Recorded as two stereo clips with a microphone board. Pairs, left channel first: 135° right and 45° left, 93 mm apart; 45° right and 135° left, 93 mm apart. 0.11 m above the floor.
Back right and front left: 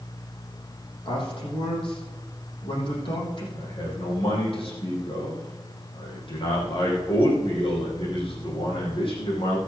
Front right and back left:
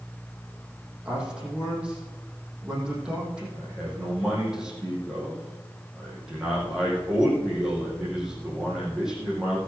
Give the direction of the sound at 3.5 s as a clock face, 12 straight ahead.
5 o'clock.